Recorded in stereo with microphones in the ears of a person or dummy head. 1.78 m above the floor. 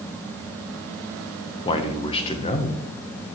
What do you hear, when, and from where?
1.6 s a man speaking: 30° left (ahead or behind), 1.2 m